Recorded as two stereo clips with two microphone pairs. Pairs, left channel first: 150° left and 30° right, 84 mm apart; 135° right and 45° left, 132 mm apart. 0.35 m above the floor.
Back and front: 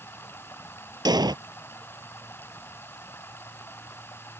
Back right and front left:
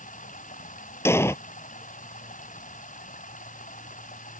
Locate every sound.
0.0 s running water: 145° right
1.1 s an explosion: 65° right